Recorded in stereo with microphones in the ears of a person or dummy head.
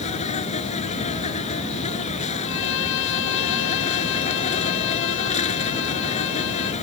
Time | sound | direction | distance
0.0 | an insect | 35° left (ahead or behind) | ?
2.4 | a violin | 75° left (ahead or behind) | ?